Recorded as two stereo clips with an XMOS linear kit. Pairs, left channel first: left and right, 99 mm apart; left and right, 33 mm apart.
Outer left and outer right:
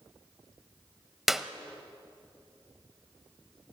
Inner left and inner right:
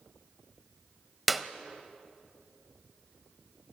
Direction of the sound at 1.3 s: 5° right (ahead or behind).